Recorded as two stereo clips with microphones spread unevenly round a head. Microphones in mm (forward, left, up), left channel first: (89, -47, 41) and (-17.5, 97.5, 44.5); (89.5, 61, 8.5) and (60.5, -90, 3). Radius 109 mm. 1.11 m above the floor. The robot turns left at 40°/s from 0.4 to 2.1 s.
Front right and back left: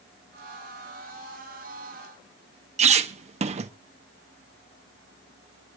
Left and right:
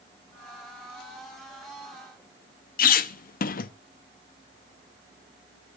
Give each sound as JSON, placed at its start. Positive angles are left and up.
{"t": 2.8, "sound": "a squeak", "azimuth_deg": 80, "distance_m": 0.6}